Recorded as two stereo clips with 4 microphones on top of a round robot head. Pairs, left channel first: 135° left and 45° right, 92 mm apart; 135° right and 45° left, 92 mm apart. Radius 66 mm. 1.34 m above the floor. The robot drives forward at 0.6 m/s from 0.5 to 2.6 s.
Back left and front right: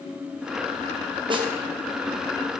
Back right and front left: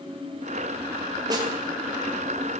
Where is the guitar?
No guitar in this recording.